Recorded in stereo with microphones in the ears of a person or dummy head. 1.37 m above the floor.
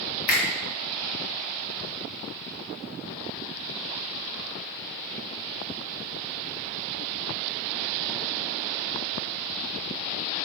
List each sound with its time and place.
0.3 s a finger snap: 55° left (ahead or behind), 0.8 m